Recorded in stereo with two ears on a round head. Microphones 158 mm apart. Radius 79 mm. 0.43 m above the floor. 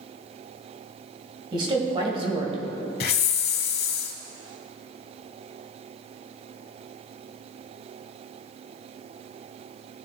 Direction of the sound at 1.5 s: 30° right (ahead or behind).